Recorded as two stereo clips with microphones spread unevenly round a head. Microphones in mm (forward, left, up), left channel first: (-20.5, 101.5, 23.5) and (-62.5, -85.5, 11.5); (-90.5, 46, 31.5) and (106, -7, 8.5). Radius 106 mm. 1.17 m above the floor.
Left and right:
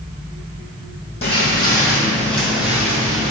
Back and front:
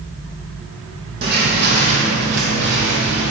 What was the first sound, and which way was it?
Footsteps, 20° left.